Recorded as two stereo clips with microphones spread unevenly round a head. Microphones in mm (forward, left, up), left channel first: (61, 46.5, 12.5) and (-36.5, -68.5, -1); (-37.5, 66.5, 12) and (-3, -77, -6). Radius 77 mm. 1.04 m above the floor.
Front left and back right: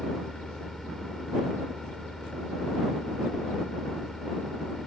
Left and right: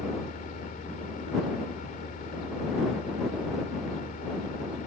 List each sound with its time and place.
0.0 s a fan: 135° left